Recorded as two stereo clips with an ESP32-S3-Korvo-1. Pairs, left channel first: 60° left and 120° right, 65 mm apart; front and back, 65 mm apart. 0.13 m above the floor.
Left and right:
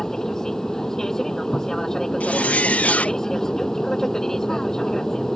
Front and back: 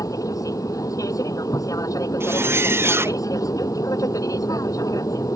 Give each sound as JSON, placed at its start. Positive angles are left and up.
{"t": 0.0, "sound": "an aircraft", "azimuth_deg": -20}
{"t": 2.2, "sound": "a zipper", "azimuth_deg": 130}